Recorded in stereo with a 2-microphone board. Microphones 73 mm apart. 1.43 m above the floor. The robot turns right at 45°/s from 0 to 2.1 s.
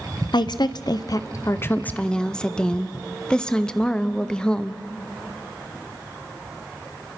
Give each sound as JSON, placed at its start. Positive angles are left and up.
{"t": 0.3, "sound": "a woman speaking", "azimuth_deg": 85, "distance_m": 0.6}